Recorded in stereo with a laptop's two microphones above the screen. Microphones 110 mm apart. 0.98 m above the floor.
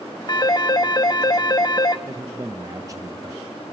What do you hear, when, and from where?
0.3 s a phone ringing: 40° left (ahead or behind), 1.0 m
2.1 s a man speaking: 30° right (ahead or behind), 0.6 m